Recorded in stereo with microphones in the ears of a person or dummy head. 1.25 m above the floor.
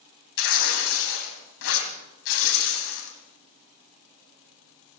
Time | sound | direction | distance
0.4 | tearing paper | 75° left (ahead or behind) | 3.5 m